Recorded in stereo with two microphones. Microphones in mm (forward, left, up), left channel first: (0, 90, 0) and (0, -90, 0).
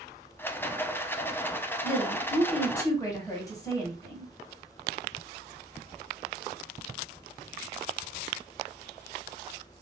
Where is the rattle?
10° left (ahead or behind), 0.5 m.